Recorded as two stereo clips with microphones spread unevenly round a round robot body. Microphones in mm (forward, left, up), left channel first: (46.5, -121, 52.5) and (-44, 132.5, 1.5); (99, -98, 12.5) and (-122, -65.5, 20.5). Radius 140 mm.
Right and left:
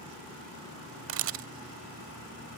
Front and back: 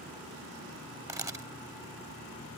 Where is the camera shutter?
110° left.